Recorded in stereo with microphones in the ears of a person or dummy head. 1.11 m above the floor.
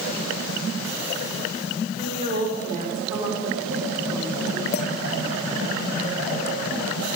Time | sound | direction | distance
2.0 | a woman speaking | 30° right (ahead or behind) | 3.5 m
4.7 | a clink | 45° left (ahead or behind) | 0.9 m